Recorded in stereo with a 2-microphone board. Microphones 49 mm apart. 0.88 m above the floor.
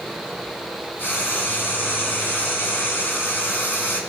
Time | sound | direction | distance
1.0 | frying | 50° left (ahead or behind) | 4 m